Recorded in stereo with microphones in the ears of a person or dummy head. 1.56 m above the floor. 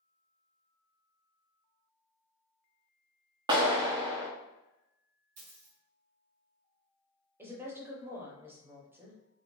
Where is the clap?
25° right (ahead or behind), 0.7 m.